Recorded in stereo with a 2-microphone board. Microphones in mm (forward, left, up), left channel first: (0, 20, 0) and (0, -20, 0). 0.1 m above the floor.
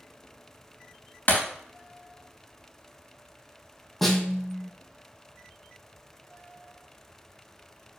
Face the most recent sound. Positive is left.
turn(degrees=5)  # may be behind; listen again after turning